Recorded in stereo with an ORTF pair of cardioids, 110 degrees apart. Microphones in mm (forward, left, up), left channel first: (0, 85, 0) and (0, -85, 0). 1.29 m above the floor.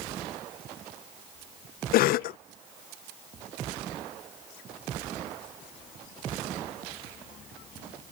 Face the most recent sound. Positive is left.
turn(degrees=65)